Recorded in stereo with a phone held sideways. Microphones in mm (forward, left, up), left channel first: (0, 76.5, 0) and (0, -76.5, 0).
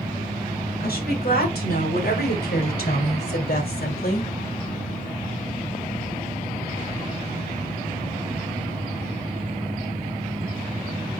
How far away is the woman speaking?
About 5 m.